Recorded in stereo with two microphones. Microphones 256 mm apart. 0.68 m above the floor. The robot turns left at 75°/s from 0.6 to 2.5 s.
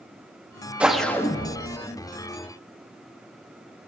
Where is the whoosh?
5° right (ahead or behind), 0.6 m; by 1.8 s 25° left (ahead or behind), 0.6 m.